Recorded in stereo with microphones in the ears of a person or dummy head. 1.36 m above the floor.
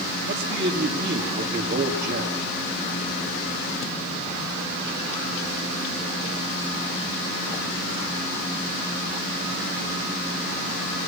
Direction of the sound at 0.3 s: 55° right (ahead or behind).